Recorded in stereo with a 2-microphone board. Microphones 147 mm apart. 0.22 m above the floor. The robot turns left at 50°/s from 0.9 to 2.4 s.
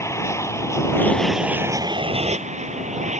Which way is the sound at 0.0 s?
20° left.